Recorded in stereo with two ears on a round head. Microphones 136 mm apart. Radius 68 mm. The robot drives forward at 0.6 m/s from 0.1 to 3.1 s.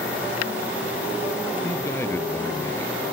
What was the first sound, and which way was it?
A man speaking, 15° left (ahead or behind).